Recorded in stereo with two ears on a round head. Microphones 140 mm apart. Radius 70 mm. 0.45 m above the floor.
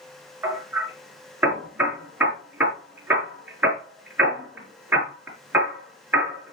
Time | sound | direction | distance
0.4 | hammering | 10° right (ahead or behind) | 5 m